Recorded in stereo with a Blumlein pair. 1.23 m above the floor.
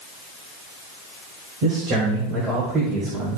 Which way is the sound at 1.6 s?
40° right.